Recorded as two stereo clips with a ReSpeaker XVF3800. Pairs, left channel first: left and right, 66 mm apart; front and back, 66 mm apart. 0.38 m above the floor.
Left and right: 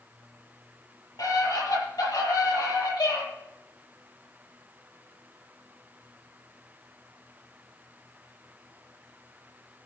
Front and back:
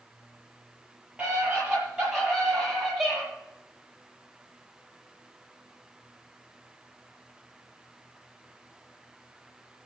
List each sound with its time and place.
1.2 s a scream: 105° left, 8.5 m; by 3.2 s 95° left, 10.5 m